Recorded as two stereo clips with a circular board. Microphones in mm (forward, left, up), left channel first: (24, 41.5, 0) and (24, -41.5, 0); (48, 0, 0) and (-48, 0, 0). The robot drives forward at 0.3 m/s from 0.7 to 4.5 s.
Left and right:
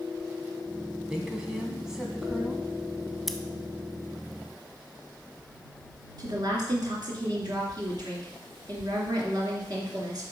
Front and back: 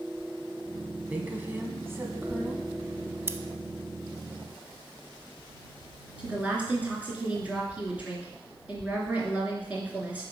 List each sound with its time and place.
1.1 s a woman speaking: 150° right, 1.2 m; by 2.7 s 165° right, 1.4 m
3.3 s scissors: 175° left, 0.5 m
6.2 s a woman speaking: 105° right, 2.5 m